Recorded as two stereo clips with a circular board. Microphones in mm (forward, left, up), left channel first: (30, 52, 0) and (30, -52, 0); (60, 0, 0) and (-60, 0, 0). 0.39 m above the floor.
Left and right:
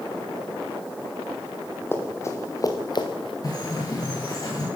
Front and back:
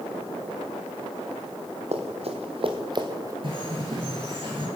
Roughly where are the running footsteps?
Behind left.